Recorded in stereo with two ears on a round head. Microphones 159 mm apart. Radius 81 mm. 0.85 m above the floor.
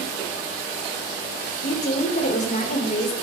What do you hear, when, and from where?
1.6 s a woman speaking: 45° left (ahead or behind), 3 m